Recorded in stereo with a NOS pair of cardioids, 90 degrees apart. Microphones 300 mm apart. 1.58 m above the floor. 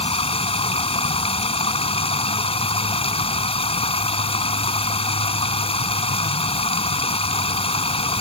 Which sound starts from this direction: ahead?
Running water, at 0.0 s.